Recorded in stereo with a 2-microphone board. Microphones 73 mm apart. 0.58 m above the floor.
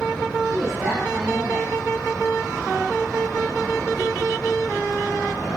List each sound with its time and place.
0.5 s a woman speaking: 40° right (ahead or behind), 2 m